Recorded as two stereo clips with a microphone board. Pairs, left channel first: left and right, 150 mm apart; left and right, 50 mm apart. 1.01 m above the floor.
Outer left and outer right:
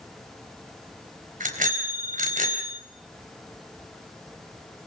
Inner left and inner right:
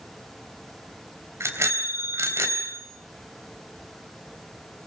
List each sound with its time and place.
1.4 s a bicycle bell: 65° right (ahead or behind), 4 m